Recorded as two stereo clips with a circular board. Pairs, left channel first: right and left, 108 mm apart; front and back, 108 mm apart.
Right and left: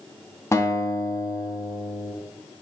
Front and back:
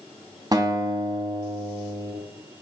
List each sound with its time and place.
0.5 s a guitar: 145° right, 1.4 m